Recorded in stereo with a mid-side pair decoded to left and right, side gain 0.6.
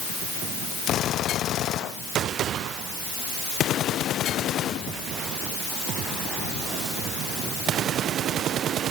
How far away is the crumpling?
No crumpling in this recording.